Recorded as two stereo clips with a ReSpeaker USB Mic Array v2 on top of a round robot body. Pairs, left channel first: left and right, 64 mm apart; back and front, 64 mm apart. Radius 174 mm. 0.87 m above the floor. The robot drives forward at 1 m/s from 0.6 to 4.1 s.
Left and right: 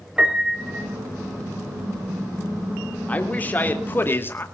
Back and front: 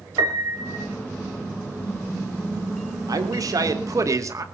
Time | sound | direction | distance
0.2 | a piano | 15° right | 2 m
3.1 | a man speaking | 25° left | 3 m